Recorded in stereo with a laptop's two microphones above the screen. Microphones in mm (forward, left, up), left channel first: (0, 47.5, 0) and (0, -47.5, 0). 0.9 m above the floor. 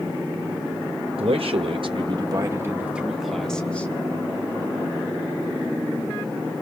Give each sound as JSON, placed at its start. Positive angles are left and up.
{"t": 1.2, "sound": "a man speaking", "side_deg": -75, "distance_m": 1.1}